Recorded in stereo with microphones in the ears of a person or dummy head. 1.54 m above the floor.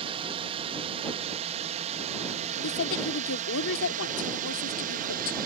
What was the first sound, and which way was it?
A drone, 30° right (ahead or behind).